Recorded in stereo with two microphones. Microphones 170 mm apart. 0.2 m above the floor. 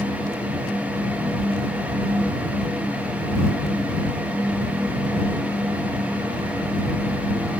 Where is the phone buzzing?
No phone buzzing in this recording.